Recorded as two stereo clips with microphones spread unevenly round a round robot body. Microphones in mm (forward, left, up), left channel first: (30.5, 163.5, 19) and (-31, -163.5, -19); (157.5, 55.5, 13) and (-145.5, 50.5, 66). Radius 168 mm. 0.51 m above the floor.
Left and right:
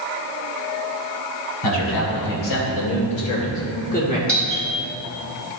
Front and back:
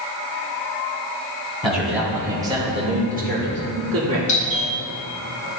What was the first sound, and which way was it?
A man speaking, 85° left.